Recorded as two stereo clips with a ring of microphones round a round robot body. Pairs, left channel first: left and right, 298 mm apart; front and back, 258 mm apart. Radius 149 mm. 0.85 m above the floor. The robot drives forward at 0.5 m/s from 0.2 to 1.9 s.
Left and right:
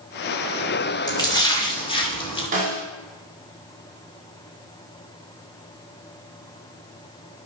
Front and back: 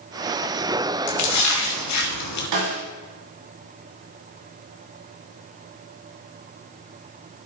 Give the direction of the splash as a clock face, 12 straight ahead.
12 o'clock.